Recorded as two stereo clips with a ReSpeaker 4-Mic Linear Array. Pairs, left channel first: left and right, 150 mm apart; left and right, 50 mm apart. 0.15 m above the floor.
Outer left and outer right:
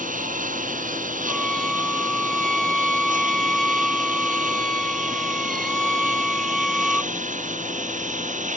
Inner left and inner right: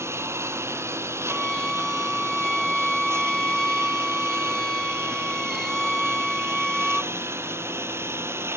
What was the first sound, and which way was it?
A lawn mower, 60° right (ahead or behind).